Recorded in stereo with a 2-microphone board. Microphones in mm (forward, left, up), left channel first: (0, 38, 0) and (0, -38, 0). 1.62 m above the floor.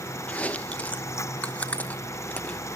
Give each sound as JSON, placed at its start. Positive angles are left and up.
{"t": 0.3, "sound": "chewing", "side_deg": 20, "distance_m": 1.0}